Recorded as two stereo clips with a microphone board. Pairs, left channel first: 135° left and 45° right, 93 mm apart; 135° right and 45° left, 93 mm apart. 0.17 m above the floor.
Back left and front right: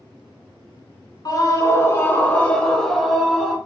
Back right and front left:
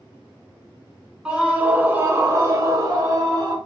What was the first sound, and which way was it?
A scream, 120° left.